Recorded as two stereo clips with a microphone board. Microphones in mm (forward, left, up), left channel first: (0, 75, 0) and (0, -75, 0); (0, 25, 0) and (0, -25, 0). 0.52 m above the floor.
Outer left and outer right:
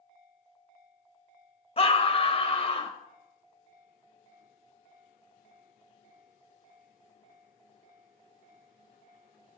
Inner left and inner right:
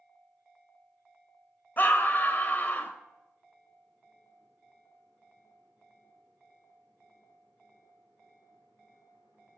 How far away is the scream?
About 1.9 m.